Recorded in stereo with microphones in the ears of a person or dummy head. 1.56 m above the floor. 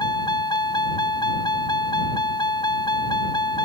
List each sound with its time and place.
0.0 s a vehicle: 25° left (ahead or behind)